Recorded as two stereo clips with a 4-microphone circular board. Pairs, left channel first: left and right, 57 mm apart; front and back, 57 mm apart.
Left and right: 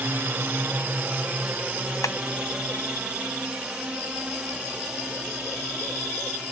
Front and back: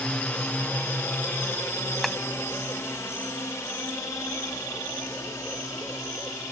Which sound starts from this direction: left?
Tapping, at 2.0 s.